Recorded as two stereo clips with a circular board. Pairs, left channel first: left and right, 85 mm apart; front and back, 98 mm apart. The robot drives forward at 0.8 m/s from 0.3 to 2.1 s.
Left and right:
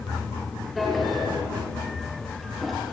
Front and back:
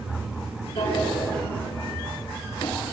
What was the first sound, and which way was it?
A drawer, straight ahead.